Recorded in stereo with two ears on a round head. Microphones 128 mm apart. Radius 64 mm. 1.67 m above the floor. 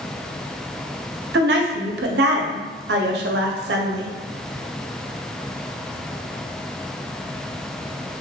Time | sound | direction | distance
1.3 | a woman speaking | 80° right | 0.5 m